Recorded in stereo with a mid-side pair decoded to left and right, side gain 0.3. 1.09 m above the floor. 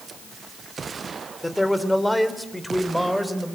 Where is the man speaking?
15° left, 3 m; by 3.5 s straight ahead, 4 m.